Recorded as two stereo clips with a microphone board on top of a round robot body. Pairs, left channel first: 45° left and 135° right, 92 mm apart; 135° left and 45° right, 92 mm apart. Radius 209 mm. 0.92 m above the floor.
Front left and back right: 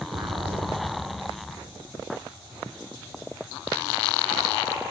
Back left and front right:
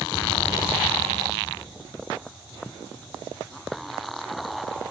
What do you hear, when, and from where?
0.1 s an explosion: 160° right, 1.4 m